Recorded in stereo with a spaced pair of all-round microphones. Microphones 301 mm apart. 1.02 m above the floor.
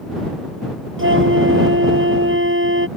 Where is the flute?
40° right (ahead or behind).